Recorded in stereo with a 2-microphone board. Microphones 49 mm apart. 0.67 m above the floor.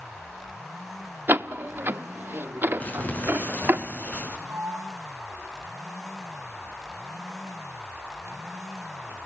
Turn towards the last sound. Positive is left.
turn(degrees=-70)  # may be behind; listen again after turning